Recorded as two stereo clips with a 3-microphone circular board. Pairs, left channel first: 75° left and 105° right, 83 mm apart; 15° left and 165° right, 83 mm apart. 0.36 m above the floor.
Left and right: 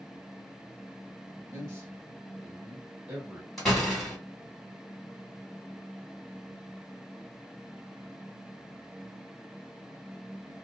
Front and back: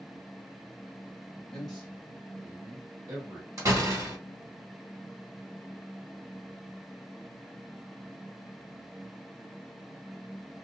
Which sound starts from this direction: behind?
A door slam, at 3.6 s.